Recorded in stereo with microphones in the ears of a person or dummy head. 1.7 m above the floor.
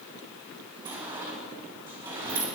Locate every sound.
0.8 s a sliding door: 15° right (ahead or behind), 2.5 m